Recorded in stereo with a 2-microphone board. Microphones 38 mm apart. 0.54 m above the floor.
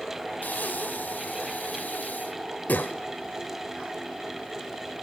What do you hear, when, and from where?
0.4 s breathing: 55° left (ahead or behind), 1.0 m